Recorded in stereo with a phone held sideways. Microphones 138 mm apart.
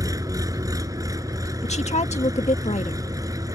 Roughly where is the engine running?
Right.